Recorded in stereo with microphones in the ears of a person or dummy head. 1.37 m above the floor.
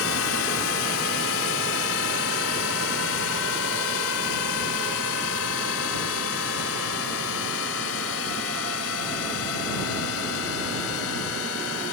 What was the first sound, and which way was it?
A drone, 75° left (ahead or behind).